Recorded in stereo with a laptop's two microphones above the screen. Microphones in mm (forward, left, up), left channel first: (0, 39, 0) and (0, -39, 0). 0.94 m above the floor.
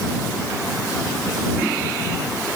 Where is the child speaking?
No child speaking in this recording.